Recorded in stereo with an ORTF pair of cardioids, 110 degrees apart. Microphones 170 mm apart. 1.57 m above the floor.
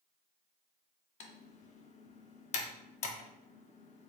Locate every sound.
1.2 s typing on a keyboard: 45° left, 0.7 m